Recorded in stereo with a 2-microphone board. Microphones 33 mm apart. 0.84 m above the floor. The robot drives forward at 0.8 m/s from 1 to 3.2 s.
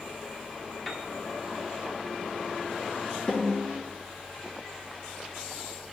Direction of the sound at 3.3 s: 30° left (ahead or behind).